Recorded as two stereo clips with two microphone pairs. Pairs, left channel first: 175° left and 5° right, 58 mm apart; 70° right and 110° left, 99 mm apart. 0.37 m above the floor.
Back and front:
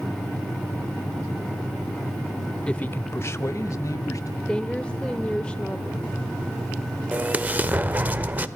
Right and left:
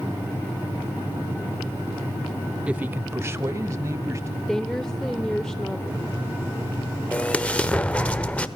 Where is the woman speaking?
145° right, 1.2 m.